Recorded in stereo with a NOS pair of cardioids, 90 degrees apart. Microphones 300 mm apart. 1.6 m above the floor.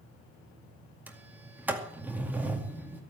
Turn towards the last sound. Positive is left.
turn(degrees=-5)